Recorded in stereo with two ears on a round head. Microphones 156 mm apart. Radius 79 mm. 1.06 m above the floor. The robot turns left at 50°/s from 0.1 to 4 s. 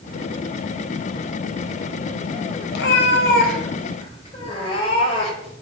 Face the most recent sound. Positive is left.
turn(degrees=35)